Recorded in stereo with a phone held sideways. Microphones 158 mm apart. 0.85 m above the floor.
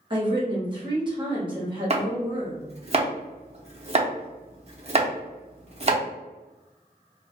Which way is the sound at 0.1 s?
30° right (ahead or behind).